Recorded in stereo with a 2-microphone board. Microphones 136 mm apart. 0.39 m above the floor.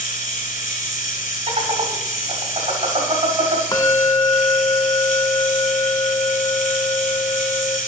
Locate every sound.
0.0 s running water: 70° left (ahead or behind), 1.4 m
1.5 s laughter: 45° right (ahead or behind), 2.5 m
3.7 s a bell: 25° left (ahead or behind), 0.8 m